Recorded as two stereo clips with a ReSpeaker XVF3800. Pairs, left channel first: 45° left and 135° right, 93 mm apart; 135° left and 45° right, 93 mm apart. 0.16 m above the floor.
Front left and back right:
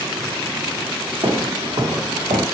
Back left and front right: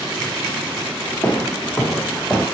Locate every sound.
1.2 s footsteps: 165° right, 1.1 m; by 2.5 s 140° right, 1.7 m